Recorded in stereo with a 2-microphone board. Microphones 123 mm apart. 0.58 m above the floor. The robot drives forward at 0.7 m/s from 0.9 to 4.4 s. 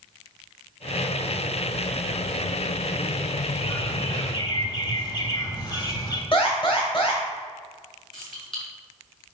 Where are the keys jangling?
40° left (ahead or behind), 3 m.